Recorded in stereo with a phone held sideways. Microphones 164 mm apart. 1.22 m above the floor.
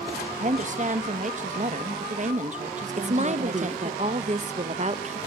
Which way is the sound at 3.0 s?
40° right (ahead or behind).